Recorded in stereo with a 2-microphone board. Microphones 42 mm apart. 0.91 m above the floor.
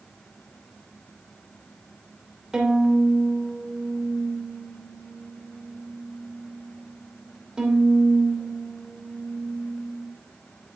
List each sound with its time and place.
2.5 s a violin: 20° right (ahead or behind), 2.5 m